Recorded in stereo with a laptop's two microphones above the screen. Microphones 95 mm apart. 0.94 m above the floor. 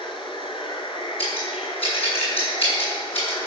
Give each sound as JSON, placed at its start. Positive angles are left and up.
{"t": 0.0, "sound": "running water", "side_deg": 65, "distance_m": 2.0}
{"t": 1.2, "sound": "scissors", "side_deg": 90, "distance_m": 7.5}